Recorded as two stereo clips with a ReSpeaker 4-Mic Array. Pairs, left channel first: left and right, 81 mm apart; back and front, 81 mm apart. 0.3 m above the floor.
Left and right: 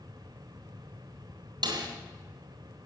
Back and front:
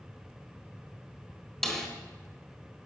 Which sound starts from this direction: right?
A snare drum, at 1.6 s.